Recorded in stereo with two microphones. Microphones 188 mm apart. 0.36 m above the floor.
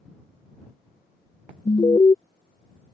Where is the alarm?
25° left (ahead or behind).